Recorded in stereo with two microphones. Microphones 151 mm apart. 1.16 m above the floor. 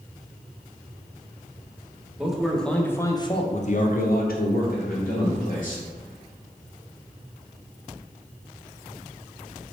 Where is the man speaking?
5° right (ahead or behind), 1.1 m; by 5.8 s 60° left (ahead or behind), 1.5 m.